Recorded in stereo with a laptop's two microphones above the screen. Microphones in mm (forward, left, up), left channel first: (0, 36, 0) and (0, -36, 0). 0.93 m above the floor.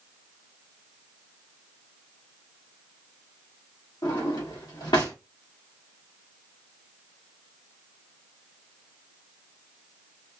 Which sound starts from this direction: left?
A drawer, at 4.0 s.